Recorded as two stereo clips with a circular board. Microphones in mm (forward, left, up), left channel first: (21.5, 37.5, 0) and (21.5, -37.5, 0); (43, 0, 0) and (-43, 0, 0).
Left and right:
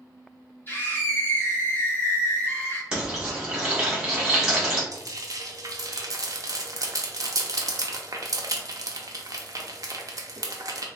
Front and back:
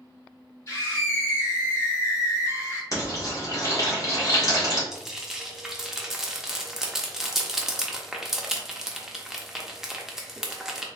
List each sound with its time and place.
0.7 s a scream: 40° left, 0.9 m
2.9 s frying: 20° right, 1.6 m
4.9 s frying: 95° right, 0.5 m